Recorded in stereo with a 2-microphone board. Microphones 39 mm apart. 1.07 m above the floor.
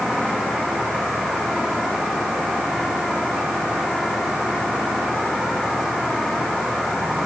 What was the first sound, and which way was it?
Only background noise.